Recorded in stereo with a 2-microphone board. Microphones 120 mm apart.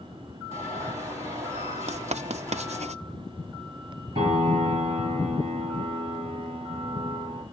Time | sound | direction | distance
0.5 | an alarm | 25° right (ahead or behind) | 6.5 m
1.9 | writing | 70° right (ahead or behind) | 0.5 m
4.2 | a piano | 45° right (ahead or behind) | 9.5 m